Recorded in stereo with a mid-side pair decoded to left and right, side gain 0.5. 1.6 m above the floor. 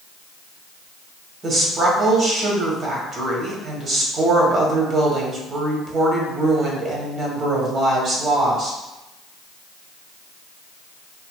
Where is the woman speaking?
45° right, 1.3 m.